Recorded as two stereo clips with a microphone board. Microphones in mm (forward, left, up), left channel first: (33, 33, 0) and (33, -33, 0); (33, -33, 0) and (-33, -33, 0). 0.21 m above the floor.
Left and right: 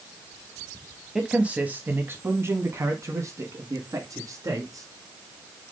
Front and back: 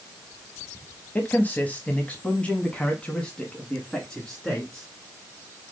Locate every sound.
1.1 s a man speaking: 20° right, 1.2 m; by 4.9 s 80° right, 2.5 m